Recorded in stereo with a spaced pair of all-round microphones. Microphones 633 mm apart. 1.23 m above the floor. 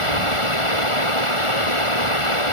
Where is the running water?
55° left (ahead or behind).